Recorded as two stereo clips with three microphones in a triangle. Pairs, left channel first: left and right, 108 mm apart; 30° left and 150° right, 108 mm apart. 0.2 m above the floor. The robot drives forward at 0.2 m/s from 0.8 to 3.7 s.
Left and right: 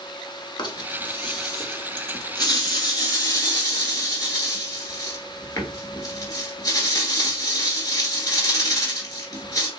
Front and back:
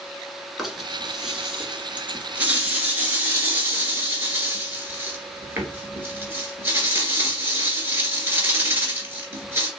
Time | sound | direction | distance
0.6 | a rattle | 125° left | 0.9 m